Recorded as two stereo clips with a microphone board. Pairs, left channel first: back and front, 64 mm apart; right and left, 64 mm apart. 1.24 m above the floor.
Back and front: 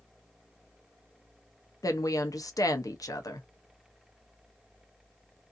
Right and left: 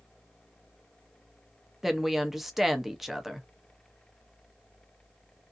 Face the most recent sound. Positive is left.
turn(degrees=175)